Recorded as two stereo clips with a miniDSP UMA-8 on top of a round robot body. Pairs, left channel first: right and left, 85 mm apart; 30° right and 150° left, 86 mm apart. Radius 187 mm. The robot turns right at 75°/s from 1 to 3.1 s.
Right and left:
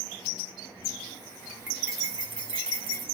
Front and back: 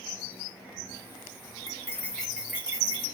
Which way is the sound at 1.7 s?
15° left.